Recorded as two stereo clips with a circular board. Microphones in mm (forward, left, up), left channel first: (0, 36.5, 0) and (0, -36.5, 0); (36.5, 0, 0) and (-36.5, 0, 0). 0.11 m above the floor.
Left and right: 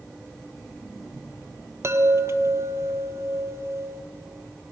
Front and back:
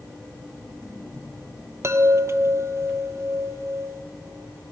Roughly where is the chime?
Behind right.